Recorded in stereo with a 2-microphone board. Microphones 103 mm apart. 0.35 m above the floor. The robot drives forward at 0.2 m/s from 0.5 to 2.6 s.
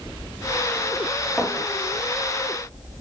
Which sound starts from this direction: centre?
A clink, at 1.4 s.